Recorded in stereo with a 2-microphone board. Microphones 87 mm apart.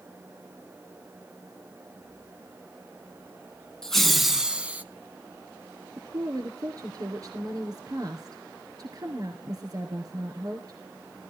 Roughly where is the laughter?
Centre.